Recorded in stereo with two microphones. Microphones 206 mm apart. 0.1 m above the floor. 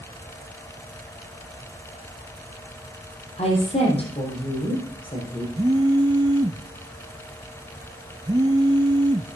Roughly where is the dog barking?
I don't hear a dog barking.